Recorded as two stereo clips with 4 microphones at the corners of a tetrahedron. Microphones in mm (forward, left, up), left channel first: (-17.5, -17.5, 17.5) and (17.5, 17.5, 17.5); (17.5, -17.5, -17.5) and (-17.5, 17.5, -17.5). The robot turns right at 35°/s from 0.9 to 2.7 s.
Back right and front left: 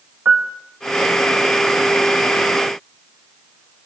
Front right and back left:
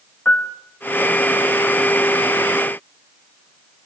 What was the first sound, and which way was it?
A piano, 5° right.